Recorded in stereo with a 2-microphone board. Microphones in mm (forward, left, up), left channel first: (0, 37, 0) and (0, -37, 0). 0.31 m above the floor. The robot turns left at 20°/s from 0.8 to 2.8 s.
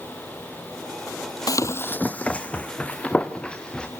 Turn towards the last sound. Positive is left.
turn(degrees=15)  # may be behind; listen again after turning